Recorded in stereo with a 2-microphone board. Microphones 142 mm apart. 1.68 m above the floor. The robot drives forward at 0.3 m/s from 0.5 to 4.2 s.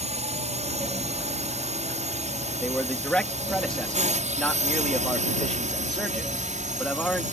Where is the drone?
50° right (ahead or behind); by 7.3 s 60° right (ahead or behind).